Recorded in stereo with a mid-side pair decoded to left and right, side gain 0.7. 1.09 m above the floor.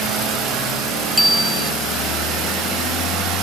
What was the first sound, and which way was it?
A bicycle bell, straight ahead.